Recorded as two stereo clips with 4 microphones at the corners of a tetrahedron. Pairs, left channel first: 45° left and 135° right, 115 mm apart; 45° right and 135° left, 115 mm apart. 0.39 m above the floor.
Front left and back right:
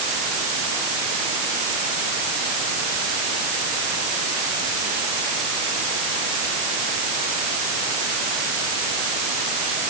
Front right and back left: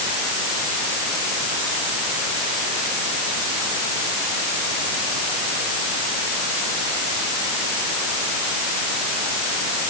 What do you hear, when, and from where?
Only background noise.